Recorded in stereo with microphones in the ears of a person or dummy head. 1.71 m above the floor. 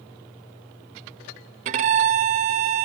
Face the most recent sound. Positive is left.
turn(degrees=-35)  # may be behind; listen again after turning